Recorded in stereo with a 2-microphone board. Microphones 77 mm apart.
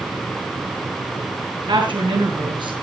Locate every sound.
1.7 s a woman speaking: 75° right (ahead or behind), 5 m